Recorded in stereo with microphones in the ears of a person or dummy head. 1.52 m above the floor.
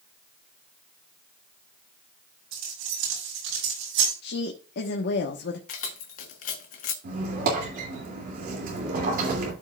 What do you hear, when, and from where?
2.5 s keys jangling: 80° right, 5 m; by 4.1 s 75° right (ahead or behind), 5.5 m
4.2 s a woman speaking: 70° left (ahead or behind), 1.3 m
5.7 s keys jangling: 50° left (ahead or behind), 0.8 m
7.0 s a squeak: 55° right (ahead or behind), 2.5 m